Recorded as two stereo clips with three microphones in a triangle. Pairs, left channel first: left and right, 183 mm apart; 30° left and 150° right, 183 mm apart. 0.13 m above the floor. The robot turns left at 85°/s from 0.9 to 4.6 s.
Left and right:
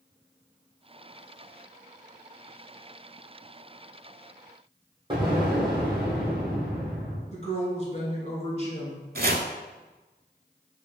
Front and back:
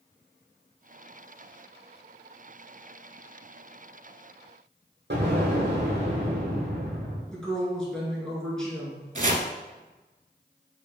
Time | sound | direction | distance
5.1 | an explosion | 155° right | 1.4 m
7.3 | a woman speaking | 115° left | 1.5 m
9.2 | chopping | 110° right | 0.5 m